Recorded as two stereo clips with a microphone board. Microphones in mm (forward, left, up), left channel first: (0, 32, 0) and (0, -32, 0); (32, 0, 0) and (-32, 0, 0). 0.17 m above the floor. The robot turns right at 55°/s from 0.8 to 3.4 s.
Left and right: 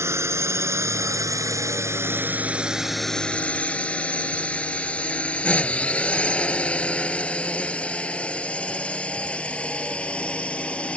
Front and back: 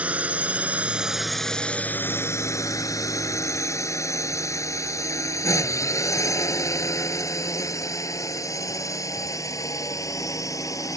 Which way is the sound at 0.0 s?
115° right.